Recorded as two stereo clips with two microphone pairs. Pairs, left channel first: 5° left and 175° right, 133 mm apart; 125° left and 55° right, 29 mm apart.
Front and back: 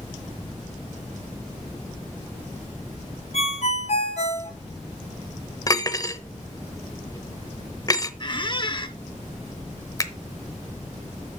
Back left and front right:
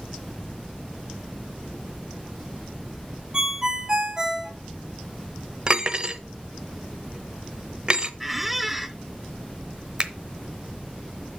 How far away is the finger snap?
About 0.8 m.